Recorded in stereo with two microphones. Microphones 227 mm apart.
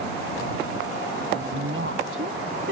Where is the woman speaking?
70° right (ahead or behind); by 2.7 s 65° right (ahead or behind).